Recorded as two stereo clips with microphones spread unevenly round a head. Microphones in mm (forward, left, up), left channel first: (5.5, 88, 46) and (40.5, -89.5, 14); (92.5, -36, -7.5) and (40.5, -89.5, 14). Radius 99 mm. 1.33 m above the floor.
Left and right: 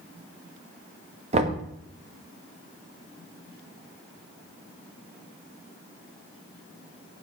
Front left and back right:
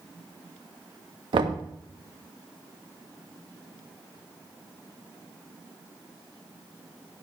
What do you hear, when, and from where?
1.3 s knocking: 140° right, 1.6 m